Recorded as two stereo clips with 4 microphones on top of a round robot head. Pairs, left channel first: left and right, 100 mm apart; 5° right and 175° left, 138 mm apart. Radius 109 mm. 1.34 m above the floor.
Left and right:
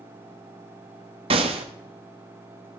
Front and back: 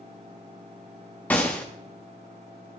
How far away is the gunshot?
About 0.9 m.